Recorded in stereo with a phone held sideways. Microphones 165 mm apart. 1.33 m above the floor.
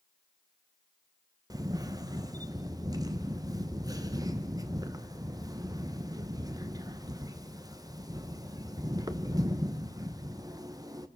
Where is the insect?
I don't hear an insect.